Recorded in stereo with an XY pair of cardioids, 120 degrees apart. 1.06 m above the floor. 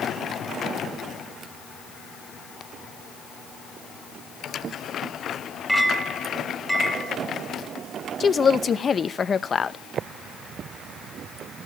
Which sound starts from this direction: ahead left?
A woman speaking, at 8.2 s.